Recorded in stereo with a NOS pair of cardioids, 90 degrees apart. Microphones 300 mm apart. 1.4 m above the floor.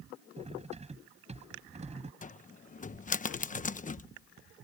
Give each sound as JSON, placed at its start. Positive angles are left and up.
{"t": 0.4, "sound": "cutlery clinking", "azimuth_deg": -20}
{"t": 2.2, "sound": "a cupboard door", "azimuth_deg": 25}